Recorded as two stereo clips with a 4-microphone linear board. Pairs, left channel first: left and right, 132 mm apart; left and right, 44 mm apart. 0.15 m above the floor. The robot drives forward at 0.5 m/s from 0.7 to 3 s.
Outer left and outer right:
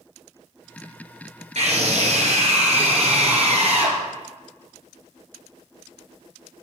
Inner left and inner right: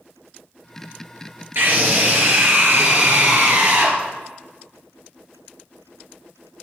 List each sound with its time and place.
1.6 s a scream: 60° right (ahead or behind), 3 m; by 4.0 s 55° right (ahead or behind), 3 m